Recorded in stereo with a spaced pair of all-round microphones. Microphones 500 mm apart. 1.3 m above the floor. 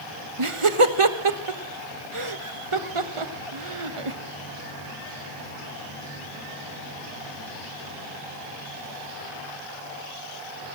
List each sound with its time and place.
0.4 s laughter: 80° right, 1.2 m